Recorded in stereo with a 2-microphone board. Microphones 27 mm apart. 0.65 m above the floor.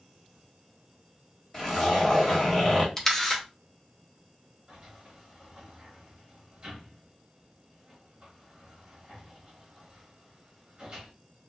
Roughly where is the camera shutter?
Centre.